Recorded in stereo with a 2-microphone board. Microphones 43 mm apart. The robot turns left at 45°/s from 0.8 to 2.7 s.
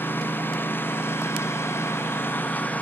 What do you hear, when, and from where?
0.0 s a lawn mower: 125° left; by 2.8 s 40° left